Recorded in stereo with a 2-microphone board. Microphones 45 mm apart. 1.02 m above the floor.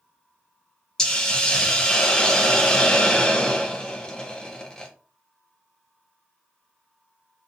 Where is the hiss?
20° left (ahead or behind), 0.6 m.